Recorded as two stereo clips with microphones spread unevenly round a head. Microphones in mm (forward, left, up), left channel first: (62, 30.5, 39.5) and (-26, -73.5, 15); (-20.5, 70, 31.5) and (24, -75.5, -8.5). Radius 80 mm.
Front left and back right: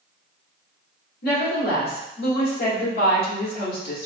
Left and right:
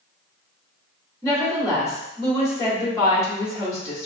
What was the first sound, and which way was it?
A woman speaking, 35° left.